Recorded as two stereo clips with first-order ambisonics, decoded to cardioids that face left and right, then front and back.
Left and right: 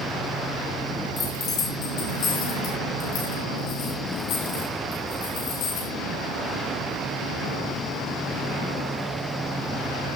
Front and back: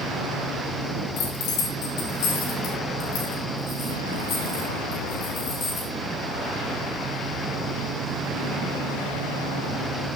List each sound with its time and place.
1.2 s keys jangling: 30° left, 8 m; by 5.9 s 60° left, 9 m